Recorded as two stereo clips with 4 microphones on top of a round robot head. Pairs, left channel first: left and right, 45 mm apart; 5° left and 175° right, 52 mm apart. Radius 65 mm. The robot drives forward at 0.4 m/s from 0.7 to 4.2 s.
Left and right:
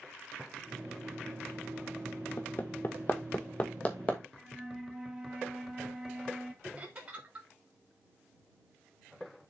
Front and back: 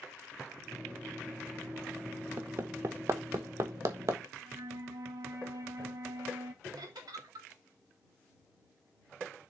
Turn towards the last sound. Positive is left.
turn(degrees=-160)